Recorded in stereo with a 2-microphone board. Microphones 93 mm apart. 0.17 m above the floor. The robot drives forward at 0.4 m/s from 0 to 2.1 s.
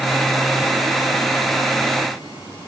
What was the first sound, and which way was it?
Only background noise.